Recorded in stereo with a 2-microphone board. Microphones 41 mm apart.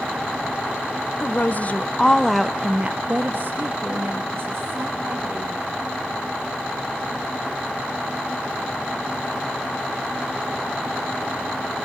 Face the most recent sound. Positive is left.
turn(degrees=-75)  # may be behind; listen again after turning